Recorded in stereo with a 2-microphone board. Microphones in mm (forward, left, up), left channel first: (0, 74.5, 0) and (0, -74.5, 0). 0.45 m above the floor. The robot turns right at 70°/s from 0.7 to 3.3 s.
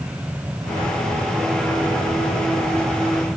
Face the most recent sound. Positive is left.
No sound to turn to.